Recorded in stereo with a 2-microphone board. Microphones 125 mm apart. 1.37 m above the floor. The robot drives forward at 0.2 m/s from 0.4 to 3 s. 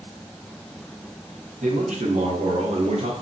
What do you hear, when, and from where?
1.6 s a man speaking: 75° right (ahead or behind), 0.8 m; by 3.1 s 60° right (ahead or behind), 0.9 m